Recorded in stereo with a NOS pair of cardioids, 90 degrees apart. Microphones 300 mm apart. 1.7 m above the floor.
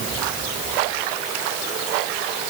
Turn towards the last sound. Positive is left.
No sound to turn to.